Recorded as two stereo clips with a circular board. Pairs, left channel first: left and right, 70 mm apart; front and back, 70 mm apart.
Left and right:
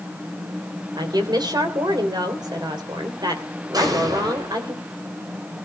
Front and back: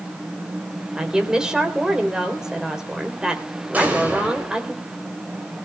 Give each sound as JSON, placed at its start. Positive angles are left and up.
{"t": 1.0, "sound": "a woman speaking", "azimuth_deg": -100, "distance_m": 3.0}
{"t": 3.7, "sound": "an explosion", "azimuth_deg": -115, "distance_m": 5.5}